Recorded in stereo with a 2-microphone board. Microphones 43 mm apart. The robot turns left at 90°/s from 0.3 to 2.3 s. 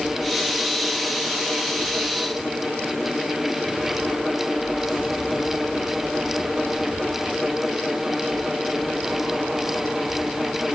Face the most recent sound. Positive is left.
No sound to turn to.